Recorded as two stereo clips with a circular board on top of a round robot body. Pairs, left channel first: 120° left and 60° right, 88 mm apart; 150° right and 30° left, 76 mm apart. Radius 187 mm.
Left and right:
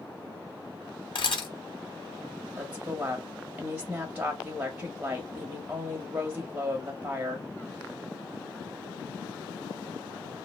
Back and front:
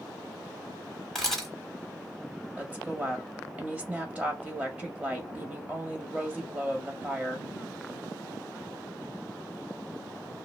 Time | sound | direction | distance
1.1 | a camera shutter | 125° left | 1.7 m
2.6 | a woman speaking | 15° right | 1.0 m